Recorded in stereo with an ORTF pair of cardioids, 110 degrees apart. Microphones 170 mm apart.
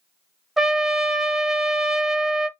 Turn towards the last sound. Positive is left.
turn(degrees=0)